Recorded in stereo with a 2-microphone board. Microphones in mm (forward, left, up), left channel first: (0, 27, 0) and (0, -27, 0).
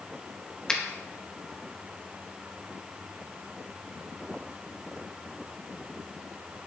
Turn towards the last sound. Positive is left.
turn(degrees=10)  # may be behind; listen again after turning